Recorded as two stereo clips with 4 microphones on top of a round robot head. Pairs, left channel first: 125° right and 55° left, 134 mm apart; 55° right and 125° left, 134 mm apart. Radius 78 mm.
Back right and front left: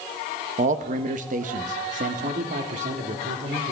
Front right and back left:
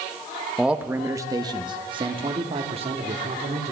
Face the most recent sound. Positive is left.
turn(degrees=85)